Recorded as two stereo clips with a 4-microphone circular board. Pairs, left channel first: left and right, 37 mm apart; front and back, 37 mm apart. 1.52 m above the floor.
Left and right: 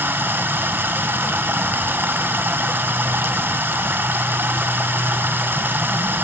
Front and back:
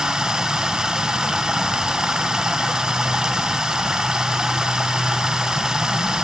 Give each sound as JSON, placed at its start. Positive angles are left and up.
{"t": 0.0, "sound": "running water", "azimuth_deg": -105, "distance_m": 1.0}